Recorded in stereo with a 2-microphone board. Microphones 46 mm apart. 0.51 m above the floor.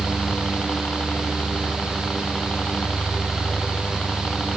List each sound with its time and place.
0.0 s a helicopter: 25° left (ahead or behind)